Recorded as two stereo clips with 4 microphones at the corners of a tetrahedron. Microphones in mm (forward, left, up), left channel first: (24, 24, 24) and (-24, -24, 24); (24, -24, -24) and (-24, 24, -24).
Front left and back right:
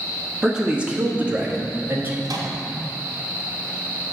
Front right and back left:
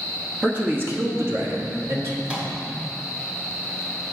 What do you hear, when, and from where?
0.4 s a man speaking: 150° left, 1.0 m; by 2.1 s 170° left, 1.8 m
2.2 s a microwave: 155° right, 1.8 m